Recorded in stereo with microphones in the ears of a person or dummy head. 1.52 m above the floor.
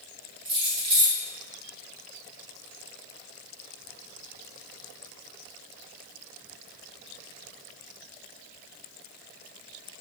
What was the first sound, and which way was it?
Keys jangling, 30° right (ahead or behind).